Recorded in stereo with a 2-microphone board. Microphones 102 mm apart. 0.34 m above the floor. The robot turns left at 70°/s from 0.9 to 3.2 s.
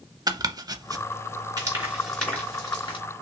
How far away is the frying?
About 3 m.